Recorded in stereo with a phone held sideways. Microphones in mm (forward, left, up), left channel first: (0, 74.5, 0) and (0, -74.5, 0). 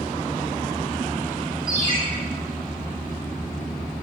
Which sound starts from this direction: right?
A ringtone, at 1.7 s.